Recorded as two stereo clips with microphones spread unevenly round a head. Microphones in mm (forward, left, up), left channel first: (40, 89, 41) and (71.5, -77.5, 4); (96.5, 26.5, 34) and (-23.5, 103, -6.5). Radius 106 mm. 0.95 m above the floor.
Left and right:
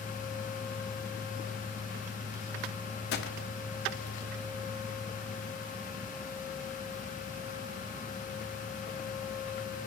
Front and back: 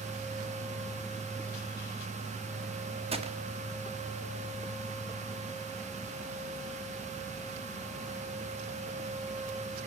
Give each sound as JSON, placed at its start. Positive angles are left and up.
{"t": 3.1, "sound": "a gunshot", "azimuth_deg": 130, "distance_m": 1.4}